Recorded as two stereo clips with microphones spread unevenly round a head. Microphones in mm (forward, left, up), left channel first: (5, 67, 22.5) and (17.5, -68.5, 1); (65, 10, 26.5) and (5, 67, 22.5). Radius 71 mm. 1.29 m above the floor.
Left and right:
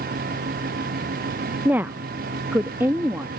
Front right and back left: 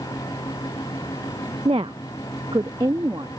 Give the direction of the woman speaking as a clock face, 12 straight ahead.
6 o'clock.